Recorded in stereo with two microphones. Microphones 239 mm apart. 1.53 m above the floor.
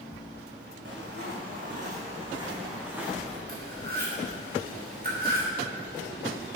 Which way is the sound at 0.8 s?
50° right (ahead or behind).